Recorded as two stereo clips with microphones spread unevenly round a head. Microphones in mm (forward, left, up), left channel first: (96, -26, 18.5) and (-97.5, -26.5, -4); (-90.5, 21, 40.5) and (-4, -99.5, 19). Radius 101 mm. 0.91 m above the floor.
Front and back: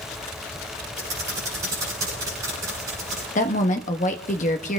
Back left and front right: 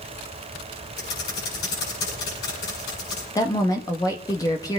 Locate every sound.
1.0 s typing on a keyboard: 105° left, 9 m
3.4 s a woman speaking: 55° left, 1.1 m